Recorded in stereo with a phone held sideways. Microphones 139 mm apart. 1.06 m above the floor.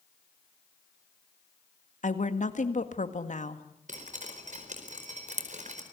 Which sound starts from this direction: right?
Dripping, at 3.9 s.